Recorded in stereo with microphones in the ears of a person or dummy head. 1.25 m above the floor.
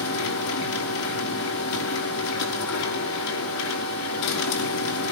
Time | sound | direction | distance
0.0 | a machine running | 80° left | 4.5 m